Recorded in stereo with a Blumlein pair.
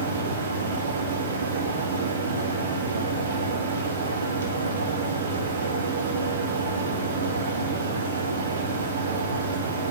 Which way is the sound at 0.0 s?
65° right.